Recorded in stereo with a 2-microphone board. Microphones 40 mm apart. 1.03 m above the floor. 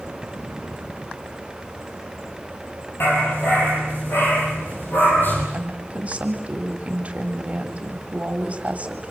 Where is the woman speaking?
30° right (ahead or behind), 3.5 m.